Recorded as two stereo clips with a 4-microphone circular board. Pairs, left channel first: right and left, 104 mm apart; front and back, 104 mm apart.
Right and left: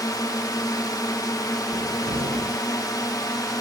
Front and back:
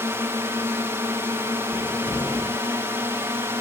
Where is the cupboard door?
70° left.